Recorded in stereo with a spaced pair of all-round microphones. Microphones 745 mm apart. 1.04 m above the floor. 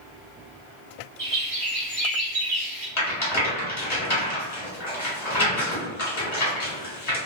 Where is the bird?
50° right (ahead or behind), 1.1 m.